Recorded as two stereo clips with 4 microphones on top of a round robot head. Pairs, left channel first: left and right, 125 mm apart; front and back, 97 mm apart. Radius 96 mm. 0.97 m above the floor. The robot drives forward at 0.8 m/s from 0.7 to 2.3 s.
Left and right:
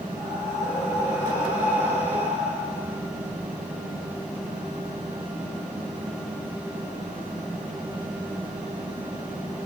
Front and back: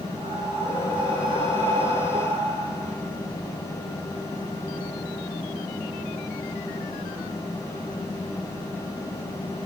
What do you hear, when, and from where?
0.1 s breathing: 165° right, 10 m